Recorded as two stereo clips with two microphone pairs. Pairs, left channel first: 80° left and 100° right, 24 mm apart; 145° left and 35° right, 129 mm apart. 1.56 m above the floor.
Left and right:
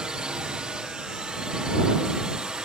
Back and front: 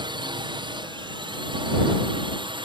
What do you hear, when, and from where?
0.0 s a drone: 70° right; by 2.7 s 65° right